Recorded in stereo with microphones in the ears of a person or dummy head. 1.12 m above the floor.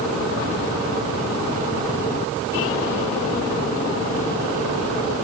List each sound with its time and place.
Only background noise.